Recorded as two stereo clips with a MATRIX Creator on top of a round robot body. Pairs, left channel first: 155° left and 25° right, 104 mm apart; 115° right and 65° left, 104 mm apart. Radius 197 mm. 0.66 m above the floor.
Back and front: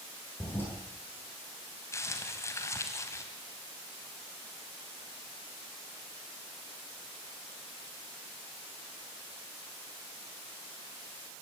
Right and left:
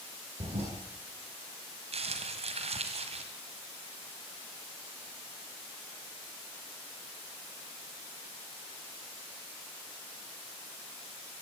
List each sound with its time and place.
0.4 s a toilet flushing: 85° left, 9 m
1.9 s crumpling: 90° left, 2.0 m